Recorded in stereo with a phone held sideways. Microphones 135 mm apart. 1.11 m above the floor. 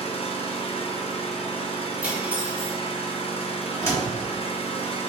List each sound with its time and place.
0.0 s an engine running: 45° left (ahead or behind), 0.8 m
2.0 s cutlery clinking: 10° right (ahead or behind), 1.2 m
3.8 s a door slam: 20° left (ahead or behind), 1.6 m